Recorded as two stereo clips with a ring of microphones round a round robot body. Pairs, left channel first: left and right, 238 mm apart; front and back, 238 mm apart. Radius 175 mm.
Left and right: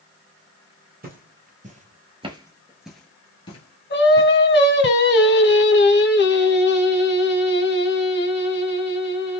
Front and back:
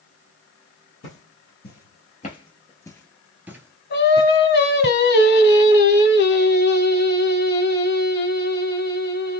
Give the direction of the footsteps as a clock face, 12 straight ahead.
2 o'clock.